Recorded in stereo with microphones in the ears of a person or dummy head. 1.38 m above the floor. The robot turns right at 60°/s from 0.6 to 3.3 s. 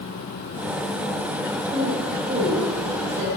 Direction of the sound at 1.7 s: 25° right (ahead or behind).